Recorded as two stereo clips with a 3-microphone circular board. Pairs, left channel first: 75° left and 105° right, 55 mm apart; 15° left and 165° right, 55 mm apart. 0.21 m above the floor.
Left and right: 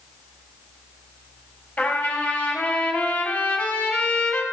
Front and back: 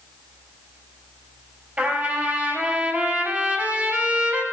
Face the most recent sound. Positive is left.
turn(degrees=140)